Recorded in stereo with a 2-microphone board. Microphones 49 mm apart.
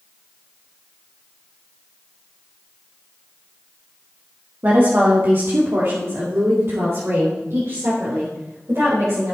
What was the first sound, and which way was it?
A woman speaking, 40° right (ahead or behind).